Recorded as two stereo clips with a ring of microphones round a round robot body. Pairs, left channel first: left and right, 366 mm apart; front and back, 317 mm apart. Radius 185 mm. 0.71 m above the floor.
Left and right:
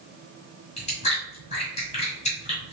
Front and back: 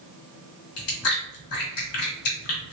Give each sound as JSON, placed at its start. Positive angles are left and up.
{"t": 0.8, "sound": "chewing", "azimuth_deg": 15, "distance_m": 1.6}